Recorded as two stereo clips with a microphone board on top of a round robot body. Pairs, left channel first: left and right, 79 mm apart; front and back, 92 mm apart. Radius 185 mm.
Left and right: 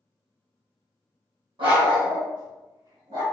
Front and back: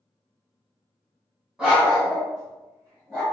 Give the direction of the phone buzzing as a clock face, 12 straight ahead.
I don't hear a phone buzzing.